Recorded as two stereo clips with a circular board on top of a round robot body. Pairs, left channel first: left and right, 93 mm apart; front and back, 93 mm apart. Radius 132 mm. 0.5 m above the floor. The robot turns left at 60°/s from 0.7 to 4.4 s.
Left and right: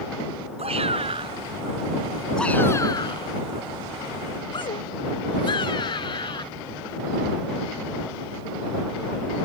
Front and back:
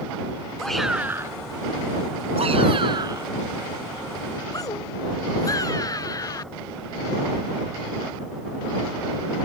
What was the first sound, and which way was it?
A shout, 85° right.